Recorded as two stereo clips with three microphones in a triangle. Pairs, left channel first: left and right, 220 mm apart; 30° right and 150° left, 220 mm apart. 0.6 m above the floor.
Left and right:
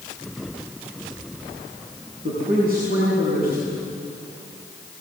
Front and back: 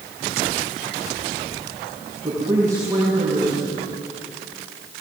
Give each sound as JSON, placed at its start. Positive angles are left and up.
{"t": 2.2, "sound": "a man speaking", "azimuth_deg": -135, "distance_m": 6.5}